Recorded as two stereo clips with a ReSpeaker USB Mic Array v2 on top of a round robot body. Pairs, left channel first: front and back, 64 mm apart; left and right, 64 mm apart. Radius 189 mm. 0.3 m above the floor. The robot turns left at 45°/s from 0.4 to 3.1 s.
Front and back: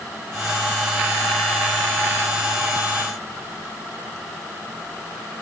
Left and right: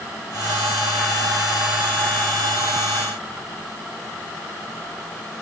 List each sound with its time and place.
Only background noise.